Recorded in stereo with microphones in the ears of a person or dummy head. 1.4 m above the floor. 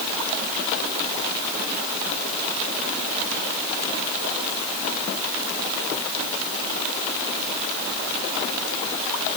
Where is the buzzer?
No buzzer in this recording.